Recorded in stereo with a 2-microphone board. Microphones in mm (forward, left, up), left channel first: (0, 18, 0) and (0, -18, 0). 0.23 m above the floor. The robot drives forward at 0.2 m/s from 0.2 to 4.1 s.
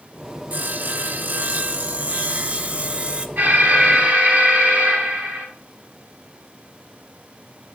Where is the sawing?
55° right (ahead or behind), 0.6 m; by 3.3 s 40° right (ahead or behind), 0.7 m.